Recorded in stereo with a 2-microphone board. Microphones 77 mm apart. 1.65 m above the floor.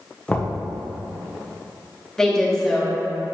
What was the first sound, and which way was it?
Knocking, 20° left (ahead or behind).